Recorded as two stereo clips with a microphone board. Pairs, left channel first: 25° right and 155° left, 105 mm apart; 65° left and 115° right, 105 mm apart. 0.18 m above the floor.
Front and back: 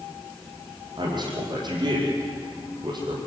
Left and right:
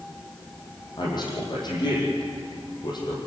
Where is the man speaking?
115° left, 7.5 m.